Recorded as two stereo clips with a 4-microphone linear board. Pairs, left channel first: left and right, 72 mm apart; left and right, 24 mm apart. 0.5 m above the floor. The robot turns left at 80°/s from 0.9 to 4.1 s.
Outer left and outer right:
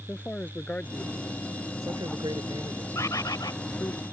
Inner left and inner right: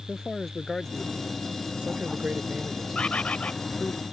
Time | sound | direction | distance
0.1 | a man speaking | 20° left (ahead or behind) | ?
3.0 | a bird | 130° left | ?